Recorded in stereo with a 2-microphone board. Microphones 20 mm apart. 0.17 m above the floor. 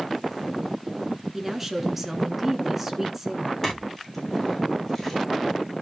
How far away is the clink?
About 6 m.